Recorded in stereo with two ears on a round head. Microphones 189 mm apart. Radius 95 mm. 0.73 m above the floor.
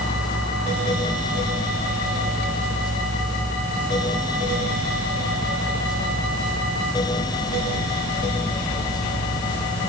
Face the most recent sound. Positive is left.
No sound to turn to.